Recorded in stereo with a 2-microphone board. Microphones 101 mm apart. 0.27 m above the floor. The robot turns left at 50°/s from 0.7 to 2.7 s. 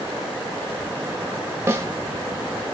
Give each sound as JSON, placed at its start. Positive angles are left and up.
{"t": 1.7, "sound": "a snare drum", "side_deg": -25, "distance_m": 0.7}